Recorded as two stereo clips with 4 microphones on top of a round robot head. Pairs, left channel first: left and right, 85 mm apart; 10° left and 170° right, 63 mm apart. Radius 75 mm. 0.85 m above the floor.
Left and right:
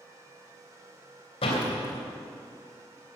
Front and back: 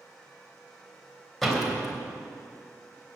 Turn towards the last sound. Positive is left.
turn(degrees=95)